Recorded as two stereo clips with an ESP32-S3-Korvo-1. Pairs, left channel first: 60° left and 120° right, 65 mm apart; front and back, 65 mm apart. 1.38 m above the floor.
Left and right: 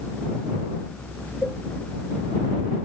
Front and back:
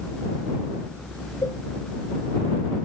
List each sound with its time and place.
1.4 s a cowbell: 10° right